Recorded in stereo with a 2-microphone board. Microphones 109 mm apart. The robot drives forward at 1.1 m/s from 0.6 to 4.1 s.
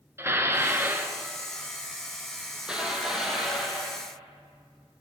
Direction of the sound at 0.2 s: 25° right (ahead or behind).